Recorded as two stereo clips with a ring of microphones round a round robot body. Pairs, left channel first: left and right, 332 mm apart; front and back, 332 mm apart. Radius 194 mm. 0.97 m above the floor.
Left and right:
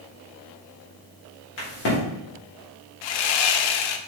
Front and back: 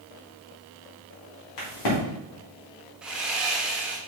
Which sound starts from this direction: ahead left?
A crack, at 1.6 s.